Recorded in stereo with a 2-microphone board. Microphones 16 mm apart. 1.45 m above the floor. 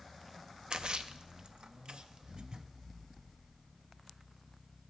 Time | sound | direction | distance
0.7 | a splash | 60° right (ahead or behind) | 0.5 m